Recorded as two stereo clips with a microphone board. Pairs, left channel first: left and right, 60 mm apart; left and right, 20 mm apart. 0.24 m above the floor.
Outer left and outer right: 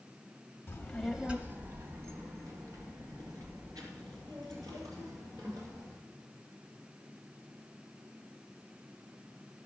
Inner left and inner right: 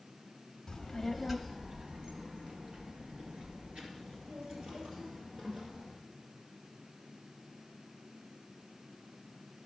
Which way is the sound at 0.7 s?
30° left (ahead or behind).